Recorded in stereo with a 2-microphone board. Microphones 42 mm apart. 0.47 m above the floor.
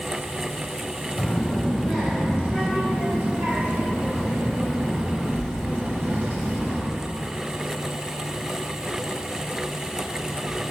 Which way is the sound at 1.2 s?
Centre (ahead or behind).